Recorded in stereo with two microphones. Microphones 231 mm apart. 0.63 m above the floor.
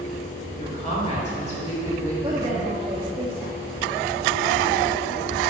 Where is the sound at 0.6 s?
30° left (ahead or behind), 2.5 m.